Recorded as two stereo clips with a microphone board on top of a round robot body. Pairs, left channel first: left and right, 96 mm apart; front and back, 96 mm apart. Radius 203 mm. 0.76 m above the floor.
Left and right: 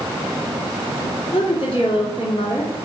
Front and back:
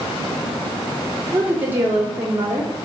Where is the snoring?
I don't hear snoring.